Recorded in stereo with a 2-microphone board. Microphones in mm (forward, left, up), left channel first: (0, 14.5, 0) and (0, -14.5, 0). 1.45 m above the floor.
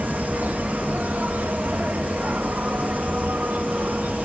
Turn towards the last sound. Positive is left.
turn(degrees=-85)